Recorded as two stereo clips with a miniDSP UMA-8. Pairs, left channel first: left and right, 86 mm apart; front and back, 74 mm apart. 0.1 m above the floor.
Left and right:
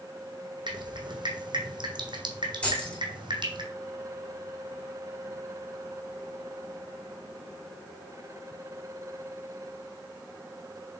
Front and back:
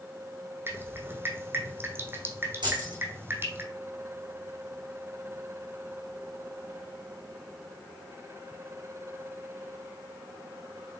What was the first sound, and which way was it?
Dripping, 120° right.